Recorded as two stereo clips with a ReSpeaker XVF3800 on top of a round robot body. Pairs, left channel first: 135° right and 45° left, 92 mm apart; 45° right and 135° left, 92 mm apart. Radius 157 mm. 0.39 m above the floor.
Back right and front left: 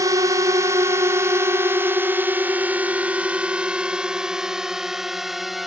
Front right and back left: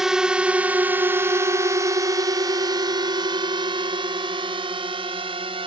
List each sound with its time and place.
0.0 s a drone: 55° left; by 5.7 s 135° left